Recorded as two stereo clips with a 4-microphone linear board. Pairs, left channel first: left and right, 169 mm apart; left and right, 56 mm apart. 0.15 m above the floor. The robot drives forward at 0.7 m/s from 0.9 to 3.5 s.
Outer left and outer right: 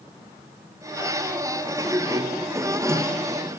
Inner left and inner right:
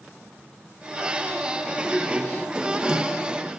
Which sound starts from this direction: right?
A sliding door, at 1.7 s.